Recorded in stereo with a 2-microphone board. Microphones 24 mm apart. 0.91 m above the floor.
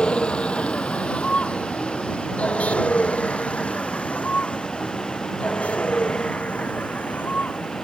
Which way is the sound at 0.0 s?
50° left (ahead or behind).